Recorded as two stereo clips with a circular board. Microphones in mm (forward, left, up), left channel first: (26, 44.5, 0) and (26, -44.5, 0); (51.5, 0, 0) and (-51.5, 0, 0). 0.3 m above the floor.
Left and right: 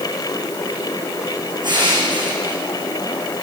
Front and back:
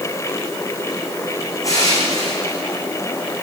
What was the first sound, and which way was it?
Crushing, 60° right.